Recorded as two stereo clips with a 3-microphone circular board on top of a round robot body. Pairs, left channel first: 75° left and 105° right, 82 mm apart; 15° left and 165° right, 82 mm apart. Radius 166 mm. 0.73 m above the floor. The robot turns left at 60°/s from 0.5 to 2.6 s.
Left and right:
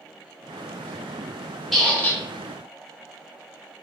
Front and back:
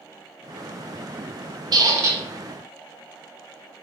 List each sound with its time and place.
1.7 s a squeak: 165° left, 0.5 m; by 2.2 s 135° left, 0.5 m